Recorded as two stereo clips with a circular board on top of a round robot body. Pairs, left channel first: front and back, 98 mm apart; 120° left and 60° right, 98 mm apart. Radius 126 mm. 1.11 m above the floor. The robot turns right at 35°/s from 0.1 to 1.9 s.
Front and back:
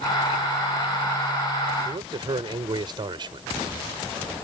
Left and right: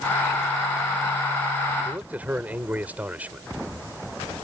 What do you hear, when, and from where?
1.9 s a man speaking: 135° right